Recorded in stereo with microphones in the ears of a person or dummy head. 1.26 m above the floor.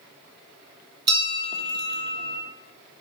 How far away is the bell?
About 1.0 m.